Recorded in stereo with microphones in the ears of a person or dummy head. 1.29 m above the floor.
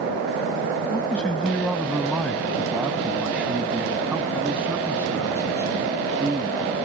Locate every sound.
0.9 s a man speaking: centre (ahead or behind); by 6.8 s 25° right (ahead or behind)